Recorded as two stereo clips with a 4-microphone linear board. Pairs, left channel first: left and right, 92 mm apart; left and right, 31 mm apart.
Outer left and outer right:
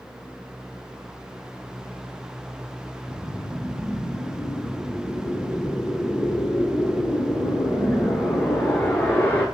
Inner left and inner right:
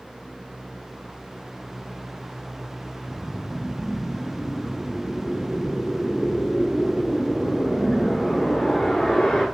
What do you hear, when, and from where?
3.1 s a whoosh: 20° left (ahead or behind), 1.0 m